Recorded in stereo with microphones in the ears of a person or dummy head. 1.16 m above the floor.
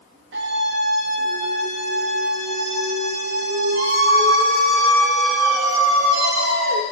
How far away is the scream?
About 1.6 m.